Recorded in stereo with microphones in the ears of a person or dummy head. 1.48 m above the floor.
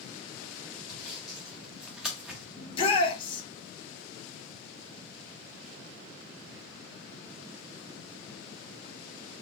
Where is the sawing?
5° right (ahead or behind), 0.8 m.